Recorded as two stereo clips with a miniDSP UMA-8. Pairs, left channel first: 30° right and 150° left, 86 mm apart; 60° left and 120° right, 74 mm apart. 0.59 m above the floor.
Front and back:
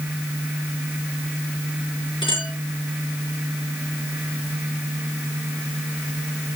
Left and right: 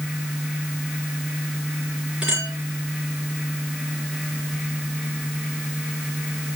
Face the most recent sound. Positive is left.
turn(degrees=-40)